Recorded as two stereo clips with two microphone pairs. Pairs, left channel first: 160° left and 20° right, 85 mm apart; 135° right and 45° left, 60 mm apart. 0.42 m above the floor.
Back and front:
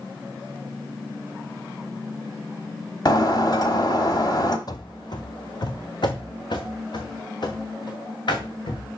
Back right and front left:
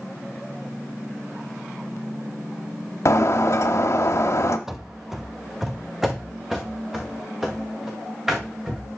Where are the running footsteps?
130° left, 0.7 m; by 8.9 s 125° left, 3.5 m.